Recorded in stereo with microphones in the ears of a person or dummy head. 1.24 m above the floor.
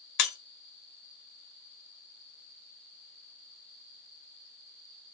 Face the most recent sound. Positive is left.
turn(degrees=60)  # may be behind; listen again after turning